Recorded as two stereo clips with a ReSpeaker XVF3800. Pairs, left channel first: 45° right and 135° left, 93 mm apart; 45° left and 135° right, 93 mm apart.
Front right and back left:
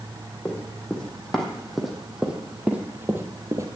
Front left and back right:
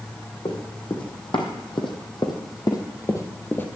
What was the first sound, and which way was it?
Running footsteps, 30° left.